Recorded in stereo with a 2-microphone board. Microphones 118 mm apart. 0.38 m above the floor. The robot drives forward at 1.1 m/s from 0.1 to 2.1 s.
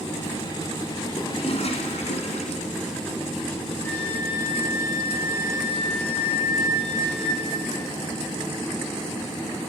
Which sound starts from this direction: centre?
A flute, at 3.8 s.